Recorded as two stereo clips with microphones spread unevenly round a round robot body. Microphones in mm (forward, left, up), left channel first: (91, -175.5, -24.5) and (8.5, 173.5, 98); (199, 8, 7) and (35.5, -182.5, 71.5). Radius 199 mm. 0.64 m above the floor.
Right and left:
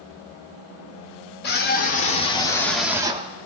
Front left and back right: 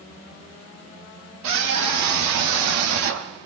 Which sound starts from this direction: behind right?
A scream, at 1.4 s.